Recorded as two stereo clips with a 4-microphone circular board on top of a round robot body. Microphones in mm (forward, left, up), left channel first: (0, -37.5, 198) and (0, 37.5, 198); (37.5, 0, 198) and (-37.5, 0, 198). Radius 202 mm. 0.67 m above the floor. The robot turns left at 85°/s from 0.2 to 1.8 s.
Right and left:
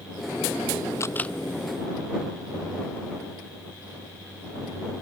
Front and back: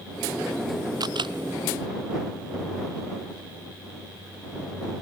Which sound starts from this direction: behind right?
A camera shutter, at 1.0 s.